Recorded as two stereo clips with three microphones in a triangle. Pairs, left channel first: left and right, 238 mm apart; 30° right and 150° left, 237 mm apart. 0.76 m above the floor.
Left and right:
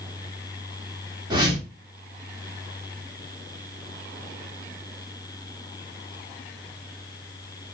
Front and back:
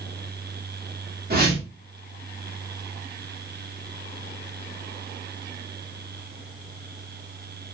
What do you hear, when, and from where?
1.3 s a whoosh: 160° right, 1.4 m